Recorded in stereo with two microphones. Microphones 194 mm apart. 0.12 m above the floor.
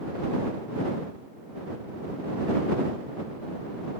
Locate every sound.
Only background noise.